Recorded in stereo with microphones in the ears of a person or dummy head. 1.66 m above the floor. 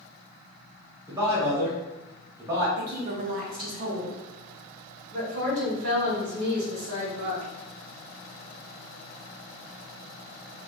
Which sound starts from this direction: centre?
A man speaking, at 1.1 s.